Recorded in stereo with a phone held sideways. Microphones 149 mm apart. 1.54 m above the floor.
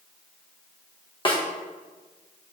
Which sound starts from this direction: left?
A snare drum, at 1.2 s.